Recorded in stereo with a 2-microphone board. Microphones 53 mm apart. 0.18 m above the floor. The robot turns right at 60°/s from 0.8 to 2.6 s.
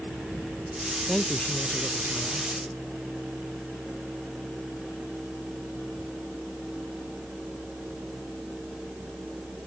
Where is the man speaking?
5° left; by 2.5 s 90° left.